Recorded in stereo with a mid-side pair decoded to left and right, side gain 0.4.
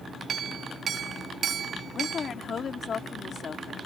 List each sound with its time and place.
0.3 s a clink: 60° right
1.9 s a woman speaking: 50° left